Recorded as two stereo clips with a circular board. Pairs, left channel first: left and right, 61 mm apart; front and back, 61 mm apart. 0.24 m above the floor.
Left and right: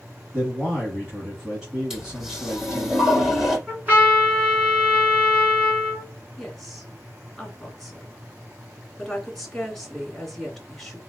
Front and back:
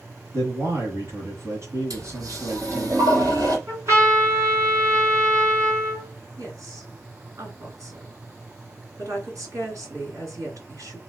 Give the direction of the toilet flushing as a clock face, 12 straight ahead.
6 o'clock.